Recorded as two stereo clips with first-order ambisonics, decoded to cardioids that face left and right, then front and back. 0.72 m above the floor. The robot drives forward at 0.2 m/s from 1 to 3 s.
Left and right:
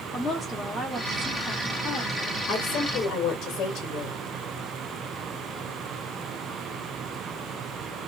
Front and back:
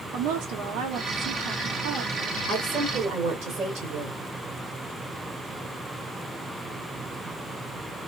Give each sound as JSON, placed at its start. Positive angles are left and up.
{"t": 0.1, "sound": "a woman speaking", "azimuth_deg": 175, "distance_m": 1.5}
{"t": 2.5, "sound": "a woman speaking", "azimuth_deg": 145, "distance_m": 1.6}